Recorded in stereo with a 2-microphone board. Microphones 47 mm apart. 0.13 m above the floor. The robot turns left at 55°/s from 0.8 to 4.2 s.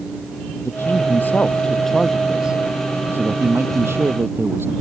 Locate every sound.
0.6 s a man speaking: 70° left; by 4.7 s 115° right